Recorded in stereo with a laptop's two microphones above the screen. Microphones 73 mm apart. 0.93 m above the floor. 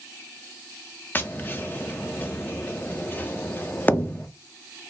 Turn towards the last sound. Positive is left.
turn(degrees=25)  # may be behind; listen again after turning